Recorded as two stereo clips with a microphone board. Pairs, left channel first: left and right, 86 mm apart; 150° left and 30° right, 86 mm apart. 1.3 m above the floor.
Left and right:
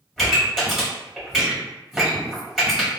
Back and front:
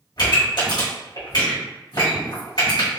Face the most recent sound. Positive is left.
turn(degrees=180)